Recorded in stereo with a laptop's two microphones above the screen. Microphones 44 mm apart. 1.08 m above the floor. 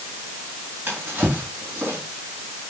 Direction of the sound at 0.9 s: 60° right (ahead or behind).